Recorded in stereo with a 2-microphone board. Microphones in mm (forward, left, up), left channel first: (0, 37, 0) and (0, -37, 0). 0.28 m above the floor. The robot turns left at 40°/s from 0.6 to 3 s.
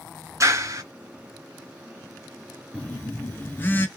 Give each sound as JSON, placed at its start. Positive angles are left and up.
{"t": 0.4, "sound": "a clap", "side_deg": -45, "distance_m": 2.5}
{"t": 2.7, "sound": "a phone buzzing", "side_deg": 20, "distance_m": 0.6}